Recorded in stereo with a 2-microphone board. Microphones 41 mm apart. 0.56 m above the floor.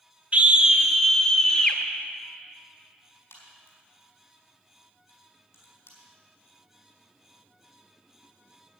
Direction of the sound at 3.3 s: 75° left (ahead or behind).